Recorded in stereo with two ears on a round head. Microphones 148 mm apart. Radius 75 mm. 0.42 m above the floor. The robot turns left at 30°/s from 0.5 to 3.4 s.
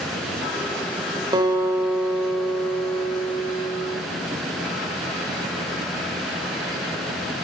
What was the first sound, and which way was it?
A guitar, 150° right.